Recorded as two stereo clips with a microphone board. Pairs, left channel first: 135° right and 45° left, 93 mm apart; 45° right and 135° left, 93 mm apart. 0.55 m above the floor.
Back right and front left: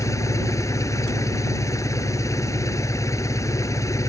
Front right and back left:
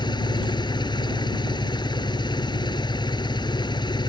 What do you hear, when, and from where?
0.0 s an engine running: 80° right